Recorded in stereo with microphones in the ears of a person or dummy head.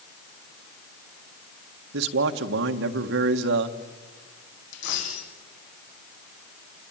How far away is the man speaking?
About 1.5 m.